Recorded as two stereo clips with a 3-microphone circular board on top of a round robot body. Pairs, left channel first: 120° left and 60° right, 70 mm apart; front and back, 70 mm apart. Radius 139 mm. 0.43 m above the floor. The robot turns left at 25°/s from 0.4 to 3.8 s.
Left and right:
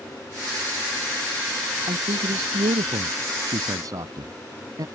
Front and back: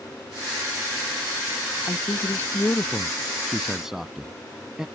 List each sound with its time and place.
1.9 s a man speaking: 45° right; by 4.8 s 95° right